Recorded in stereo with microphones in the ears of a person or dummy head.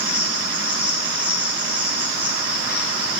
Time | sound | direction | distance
0.0 | an insect | 10° right (ahead or behind) | 1.0 m